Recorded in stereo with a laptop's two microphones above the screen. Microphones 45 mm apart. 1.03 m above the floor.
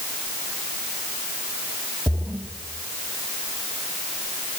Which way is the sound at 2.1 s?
60° right (ahead or behind).